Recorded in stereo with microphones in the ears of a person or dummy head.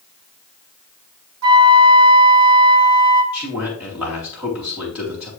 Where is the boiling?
No boiling in this recording.